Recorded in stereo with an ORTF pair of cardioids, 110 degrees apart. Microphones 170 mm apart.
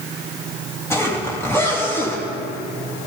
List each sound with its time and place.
0.9 s a zipper: 15° left, 3.5 m